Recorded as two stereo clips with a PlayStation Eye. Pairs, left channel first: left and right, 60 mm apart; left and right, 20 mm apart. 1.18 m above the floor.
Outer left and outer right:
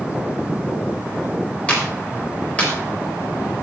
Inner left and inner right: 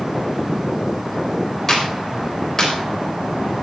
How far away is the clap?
About 4 m.